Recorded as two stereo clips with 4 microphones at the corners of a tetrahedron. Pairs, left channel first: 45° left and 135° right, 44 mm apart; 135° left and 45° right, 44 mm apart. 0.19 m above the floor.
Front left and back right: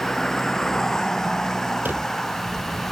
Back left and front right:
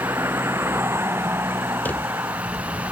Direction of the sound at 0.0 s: 35° right.